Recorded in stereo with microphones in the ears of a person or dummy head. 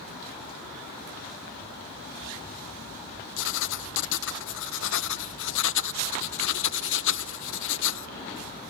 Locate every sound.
3.4 s writing: 70° left (ahead or behind)